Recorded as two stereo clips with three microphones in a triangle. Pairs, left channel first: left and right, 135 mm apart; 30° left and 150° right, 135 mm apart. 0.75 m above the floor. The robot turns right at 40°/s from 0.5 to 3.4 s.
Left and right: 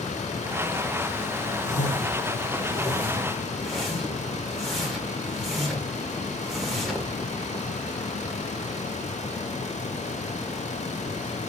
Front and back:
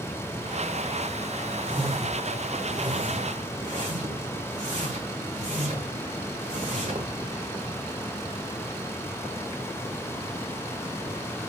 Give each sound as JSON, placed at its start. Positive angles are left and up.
{"t": 1.6, "sound": "a whoosh", "azimuth_deg": 110, "distance_m": 1.8}